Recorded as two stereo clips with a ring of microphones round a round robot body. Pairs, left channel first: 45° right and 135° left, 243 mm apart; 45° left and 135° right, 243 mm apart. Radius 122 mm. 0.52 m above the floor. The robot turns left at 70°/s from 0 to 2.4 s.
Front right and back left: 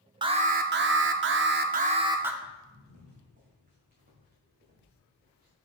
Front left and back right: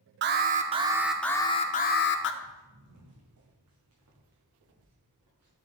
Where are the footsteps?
160° right, 2 m; by 5.5 s 170° right, 3.5 m.